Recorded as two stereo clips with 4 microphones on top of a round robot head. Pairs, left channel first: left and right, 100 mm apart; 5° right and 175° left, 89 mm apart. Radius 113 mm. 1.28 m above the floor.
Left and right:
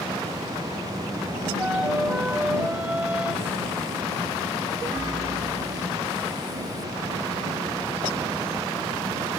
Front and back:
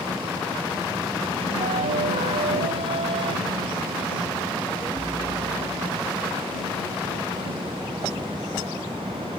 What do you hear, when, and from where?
1.6 s a flute: 170° right